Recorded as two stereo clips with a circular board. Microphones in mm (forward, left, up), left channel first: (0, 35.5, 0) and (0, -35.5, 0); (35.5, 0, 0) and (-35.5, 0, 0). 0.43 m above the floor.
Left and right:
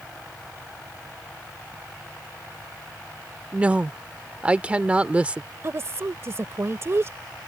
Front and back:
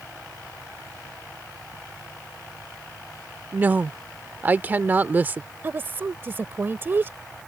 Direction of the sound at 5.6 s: 130° right.